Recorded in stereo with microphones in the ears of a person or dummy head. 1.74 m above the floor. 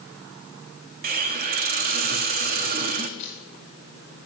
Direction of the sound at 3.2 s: 40° left (ahead or behind).